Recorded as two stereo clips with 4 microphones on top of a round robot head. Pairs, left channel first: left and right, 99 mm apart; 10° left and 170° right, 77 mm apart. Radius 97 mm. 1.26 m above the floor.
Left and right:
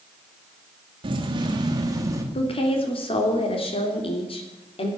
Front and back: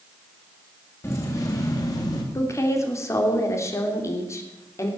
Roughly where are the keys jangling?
Ahead right.